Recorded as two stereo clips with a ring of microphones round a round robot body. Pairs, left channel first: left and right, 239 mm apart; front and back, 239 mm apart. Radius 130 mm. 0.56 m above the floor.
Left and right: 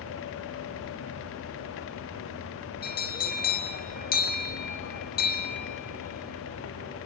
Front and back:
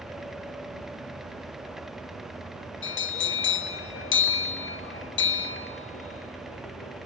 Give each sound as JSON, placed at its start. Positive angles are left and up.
{"t": 2.8, "sound": "a bell", "azimuth_deg": 35, "distance_m": 1.5}